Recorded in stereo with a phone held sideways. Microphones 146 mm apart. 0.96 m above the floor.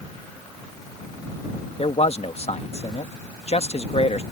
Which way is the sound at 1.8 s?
50° left (ahead or behind).